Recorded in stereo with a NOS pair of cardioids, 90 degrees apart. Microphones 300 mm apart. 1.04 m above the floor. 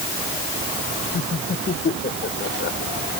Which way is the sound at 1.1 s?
35° left.